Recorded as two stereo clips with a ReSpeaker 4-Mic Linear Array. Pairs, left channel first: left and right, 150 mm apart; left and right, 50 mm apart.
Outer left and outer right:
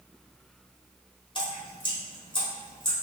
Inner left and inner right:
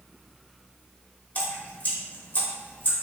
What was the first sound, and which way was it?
Dripping, 35° left (ahead or behind).